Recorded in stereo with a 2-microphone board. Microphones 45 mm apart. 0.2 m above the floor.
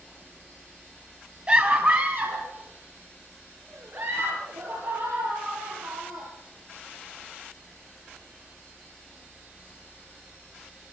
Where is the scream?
25° right (ahead or behind), 1.7 m; by 6.3 s 75° right (ahead or behind), 7.5 m.